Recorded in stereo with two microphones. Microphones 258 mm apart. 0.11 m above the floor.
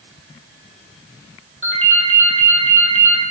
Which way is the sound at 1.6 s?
55° right (ahead or behind).